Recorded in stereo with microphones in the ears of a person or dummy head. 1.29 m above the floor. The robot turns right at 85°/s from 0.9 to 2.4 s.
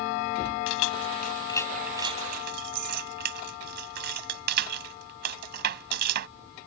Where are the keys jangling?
75° left (ahead or behind); by 6.3 s 50° right (ahead or behind).